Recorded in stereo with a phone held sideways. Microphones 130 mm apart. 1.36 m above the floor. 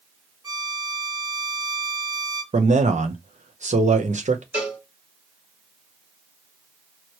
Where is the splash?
No splash in this recording.